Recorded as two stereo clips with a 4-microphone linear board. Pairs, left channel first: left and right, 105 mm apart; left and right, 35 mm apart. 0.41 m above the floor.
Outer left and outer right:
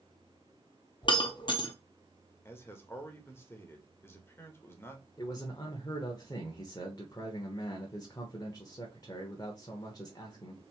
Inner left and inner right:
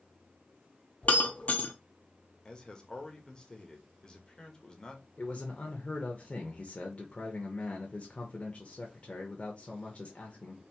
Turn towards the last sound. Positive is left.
turn(degrees=35)  # may be behind; listen again after turning